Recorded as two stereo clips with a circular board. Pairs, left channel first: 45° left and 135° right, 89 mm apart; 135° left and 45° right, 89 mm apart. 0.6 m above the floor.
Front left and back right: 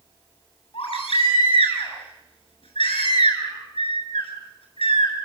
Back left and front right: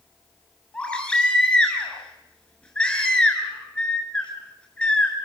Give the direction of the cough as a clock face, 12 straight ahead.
I don't hear a cough.